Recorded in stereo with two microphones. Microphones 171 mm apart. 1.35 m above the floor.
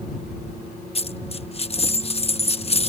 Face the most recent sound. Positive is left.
turn(degrees=40)  # may be behind; listen again after turning